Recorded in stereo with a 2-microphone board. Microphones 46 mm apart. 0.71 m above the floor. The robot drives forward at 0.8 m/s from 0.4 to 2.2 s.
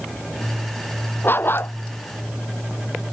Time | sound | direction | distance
1.2 | a dog barking | 50° left (ahead or behind) | ?